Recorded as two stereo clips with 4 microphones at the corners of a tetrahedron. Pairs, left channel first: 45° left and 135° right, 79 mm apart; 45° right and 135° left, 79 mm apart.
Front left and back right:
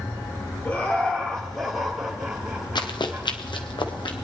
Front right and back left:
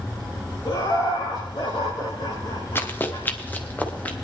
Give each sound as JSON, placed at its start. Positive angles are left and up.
{"t": 0.7, "sound": "laughter", "azimuth_deg": -20, "distance_m": 3.0}
{"t": 2.8, "sound": "running footsteps", "azimuth_deg": 20, "distance_m": 1.4}